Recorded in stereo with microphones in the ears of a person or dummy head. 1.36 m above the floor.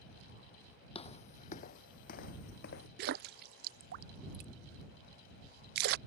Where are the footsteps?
25° left (ahead or behind); by 2.9 s 55° left (ahead or behind).